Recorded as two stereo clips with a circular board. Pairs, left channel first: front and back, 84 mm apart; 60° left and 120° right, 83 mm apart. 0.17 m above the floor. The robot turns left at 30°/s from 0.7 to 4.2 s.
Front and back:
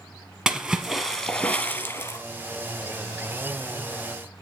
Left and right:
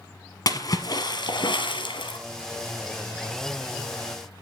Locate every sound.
0.5 s a splash: 95° left, 1.2 m; by 2.2 s 50° left, 1.2 m